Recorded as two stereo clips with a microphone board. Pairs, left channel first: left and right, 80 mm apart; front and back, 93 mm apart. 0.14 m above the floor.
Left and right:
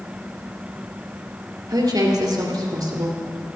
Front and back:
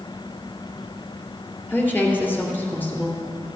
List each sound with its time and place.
1.7 s a woman speaking: 65° right, 2.5 m